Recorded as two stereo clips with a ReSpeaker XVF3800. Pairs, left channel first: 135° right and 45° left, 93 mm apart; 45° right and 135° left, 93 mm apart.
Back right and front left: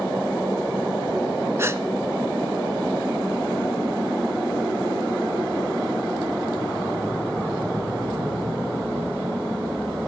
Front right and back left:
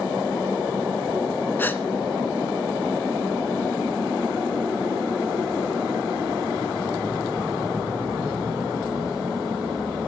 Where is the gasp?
10° left, 0.7 m.